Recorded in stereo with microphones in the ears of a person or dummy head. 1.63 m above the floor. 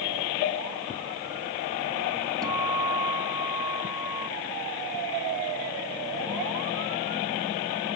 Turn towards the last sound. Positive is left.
turn(degrees=-15)  # may be behind; listen again after turning